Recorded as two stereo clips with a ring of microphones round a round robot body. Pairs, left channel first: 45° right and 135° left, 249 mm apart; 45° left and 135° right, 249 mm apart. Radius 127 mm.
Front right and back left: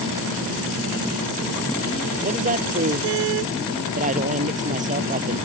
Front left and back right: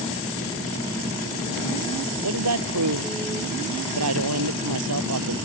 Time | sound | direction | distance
2.2 | a woman speaking | 165° right | ?